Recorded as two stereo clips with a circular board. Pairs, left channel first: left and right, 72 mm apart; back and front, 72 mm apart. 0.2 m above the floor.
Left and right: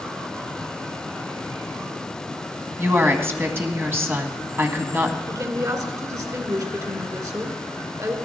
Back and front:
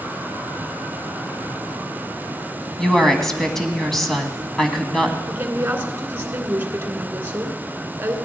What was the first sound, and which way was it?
A woman speaking, 100° right.